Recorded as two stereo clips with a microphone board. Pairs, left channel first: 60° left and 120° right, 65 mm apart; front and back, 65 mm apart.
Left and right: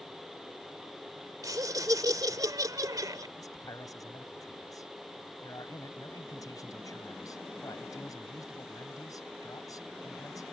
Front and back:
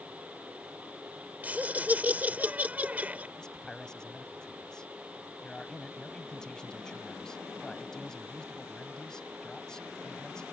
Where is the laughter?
115° right.